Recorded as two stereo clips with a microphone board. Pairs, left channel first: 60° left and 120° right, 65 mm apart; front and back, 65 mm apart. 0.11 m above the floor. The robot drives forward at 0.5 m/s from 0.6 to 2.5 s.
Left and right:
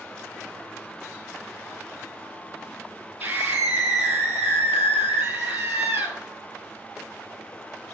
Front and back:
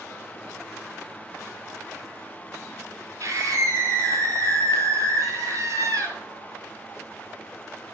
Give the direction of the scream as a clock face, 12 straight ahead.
5 o'clock.